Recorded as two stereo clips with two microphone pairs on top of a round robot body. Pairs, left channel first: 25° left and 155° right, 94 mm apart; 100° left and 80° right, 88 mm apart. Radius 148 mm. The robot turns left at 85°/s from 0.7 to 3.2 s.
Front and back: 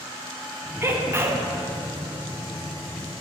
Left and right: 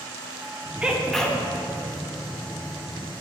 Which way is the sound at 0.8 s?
135° right.